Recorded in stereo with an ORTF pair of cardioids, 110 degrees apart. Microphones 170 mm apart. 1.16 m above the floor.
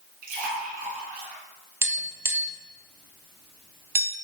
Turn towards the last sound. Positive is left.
turn(degrees=-15)